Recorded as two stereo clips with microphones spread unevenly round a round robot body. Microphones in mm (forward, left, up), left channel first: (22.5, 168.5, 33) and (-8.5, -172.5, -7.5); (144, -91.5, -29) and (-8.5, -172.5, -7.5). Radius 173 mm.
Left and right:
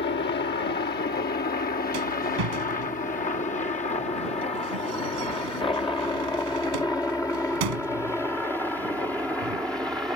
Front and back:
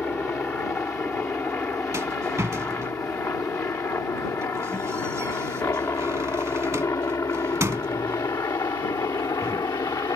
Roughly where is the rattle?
Right.